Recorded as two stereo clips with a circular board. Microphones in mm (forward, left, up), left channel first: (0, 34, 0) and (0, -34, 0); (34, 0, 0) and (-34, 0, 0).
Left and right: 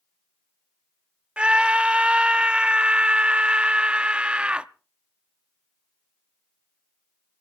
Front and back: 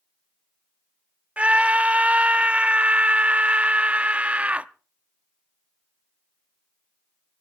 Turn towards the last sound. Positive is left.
turn(degrees=-140)